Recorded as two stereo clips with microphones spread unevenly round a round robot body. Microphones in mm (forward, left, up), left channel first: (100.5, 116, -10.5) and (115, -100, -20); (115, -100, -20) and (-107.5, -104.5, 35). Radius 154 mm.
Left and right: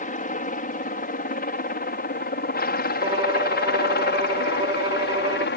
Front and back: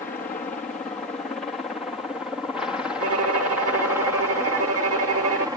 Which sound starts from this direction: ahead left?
A helicopter, at 0.0 s.